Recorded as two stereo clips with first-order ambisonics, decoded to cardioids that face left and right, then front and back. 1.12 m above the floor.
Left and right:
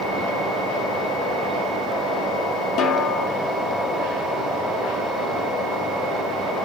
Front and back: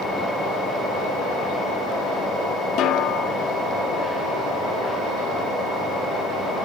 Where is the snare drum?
45° left, 2 m.